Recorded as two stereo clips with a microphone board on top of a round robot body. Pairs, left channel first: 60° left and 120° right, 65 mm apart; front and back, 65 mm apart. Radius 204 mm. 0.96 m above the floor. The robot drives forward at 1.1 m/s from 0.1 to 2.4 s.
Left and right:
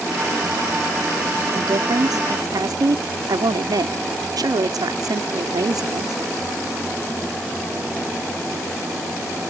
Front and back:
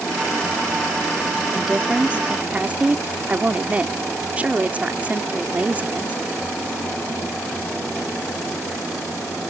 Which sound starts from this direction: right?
A woman speaking, at 1.5 s.